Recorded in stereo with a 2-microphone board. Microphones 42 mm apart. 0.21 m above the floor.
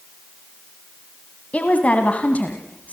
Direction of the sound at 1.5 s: 35° left (ahead or behind).